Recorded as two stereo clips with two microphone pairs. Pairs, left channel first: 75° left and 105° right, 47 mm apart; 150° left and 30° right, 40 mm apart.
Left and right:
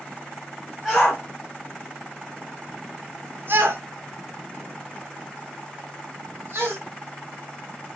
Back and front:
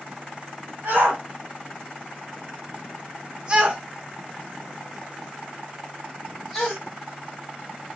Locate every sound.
0.8 s a shout: 5° right, 1.6 m; by 6.8 s 130° right, 2.5 m